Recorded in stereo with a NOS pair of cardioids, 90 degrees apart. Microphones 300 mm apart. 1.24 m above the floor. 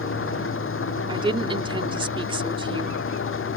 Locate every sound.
0.0 s an engine running: 45° left
1.1 s a woman speaking: 15° right